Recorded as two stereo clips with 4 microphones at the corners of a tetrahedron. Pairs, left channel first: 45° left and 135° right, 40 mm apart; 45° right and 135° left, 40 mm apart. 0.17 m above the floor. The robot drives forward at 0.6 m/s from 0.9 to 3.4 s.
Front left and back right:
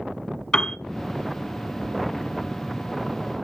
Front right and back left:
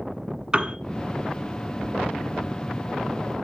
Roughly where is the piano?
Left.